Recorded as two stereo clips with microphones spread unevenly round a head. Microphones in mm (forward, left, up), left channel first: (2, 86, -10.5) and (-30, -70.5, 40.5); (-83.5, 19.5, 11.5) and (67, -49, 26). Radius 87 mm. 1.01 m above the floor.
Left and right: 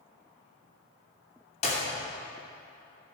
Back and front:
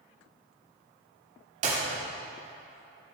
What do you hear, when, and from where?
1.6 s a clap: 30° left, 2.5 m